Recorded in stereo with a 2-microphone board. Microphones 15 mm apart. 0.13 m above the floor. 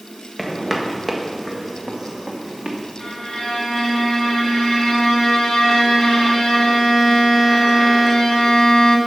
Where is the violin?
75° left (ahead or behind), 3.5 m.